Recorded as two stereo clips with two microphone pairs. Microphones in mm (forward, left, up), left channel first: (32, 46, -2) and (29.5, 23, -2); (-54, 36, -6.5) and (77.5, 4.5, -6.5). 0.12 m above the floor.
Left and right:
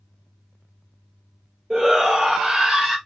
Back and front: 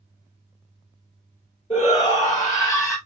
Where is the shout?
150° right, 2.5 m; by 3.0 s 130° right, 2 m.